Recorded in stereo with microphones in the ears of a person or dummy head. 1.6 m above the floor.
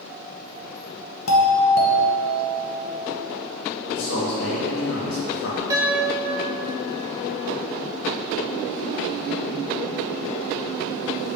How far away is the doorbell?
About 0.9 m.